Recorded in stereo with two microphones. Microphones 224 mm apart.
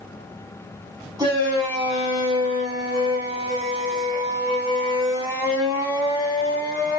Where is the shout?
20° right (ahead or behind), 1.7 m.